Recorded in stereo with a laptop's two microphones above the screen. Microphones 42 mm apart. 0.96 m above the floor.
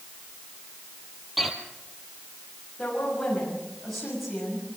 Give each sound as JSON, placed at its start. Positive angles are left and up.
{"t": 1.4, "sound": "footsteps", "side_deg": 0, "distance_m": 1.8}
{"t": 2.8, "sound": "a woman speaking", "side_deg": 5, "distance_m": 6.5}